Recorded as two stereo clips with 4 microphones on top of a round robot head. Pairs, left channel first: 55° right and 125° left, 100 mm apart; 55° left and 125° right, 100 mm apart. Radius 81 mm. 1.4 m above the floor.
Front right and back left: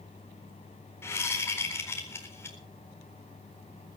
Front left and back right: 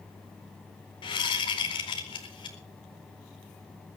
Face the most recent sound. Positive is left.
turn(degrees=15)